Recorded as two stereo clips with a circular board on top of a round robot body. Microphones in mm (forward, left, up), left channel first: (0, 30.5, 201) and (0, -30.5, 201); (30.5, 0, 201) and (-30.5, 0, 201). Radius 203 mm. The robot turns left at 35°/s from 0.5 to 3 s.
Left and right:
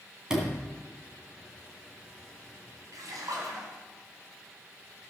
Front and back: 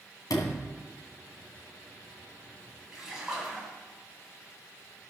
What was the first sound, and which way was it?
A sliding door, 15° right.